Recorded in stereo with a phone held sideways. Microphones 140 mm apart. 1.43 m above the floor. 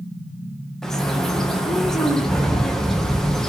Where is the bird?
5° left (ahead or behind), 0.7 m.